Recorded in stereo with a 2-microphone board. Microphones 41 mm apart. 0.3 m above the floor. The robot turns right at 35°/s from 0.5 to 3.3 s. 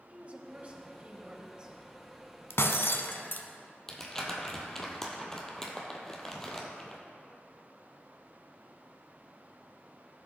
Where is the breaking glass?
75° left (ahead or behind), 0.8 m; by 3.5 s 50° left (ahead or behind), 0.8 m.